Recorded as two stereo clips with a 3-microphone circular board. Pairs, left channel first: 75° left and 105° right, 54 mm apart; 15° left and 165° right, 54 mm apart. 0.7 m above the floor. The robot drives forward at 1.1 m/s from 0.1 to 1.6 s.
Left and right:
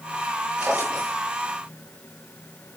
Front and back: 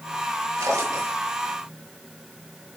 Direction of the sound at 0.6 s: 170° right.